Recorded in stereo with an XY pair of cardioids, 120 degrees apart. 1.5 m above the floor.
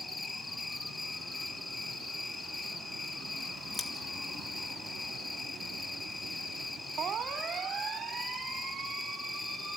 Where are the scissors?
20° left, 2 m.